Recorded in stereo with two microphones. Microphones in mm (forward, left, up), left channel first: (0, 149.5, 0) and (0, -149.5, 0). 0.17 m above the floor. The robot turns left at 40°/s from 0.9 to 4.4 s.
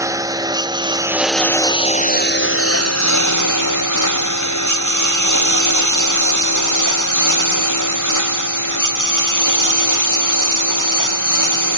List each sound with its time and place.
0.0 s a lawn mower: 10° right (ahead or behind); by 11.8 s 85° left